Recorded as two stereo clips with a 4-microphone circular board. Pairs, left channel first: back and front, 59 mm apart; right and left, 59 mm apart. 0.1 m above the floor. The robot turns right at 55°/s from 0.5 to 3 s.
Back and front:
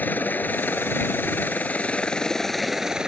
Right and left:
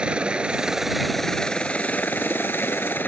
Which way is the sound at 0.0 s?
150° left.